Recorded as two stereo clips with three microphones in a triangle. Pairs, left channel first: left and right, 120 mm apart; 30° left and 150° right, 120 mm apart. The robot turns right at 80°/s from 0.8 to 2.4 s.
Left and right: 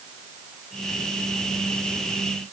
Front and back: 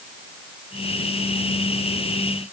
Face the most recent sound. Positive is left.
No sound to turn to.